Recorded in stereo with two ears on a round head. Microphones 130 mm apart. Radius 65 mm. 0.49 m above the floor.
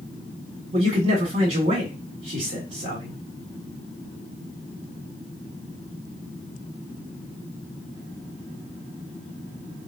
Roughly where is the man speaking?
Right.